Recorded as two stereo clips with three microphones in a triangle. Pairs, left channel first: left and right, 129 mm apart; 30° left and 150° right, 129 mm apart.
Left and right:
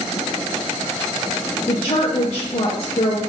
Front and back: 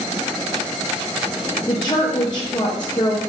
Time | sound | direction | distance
1.7 | a woman speaking | 70° left | 0.6 m